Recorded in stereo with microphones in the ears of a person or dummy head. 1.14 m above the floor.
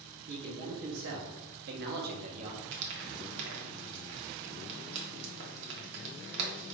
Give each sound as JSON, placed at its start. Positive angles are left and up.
{"t": 0.3, "sound": "a man speaking", "side_deg": -50, "distance_m": 1.3}
{"t": 2.7, "sound": "frying", "side_deg": -70, "distance_m": 1.0}